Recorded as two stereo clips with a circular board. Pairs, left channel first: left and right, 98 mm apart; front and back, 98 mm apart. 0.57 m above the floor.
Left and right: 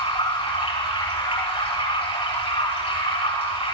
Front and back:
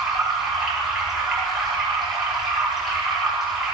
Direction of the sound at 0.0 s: 95° left.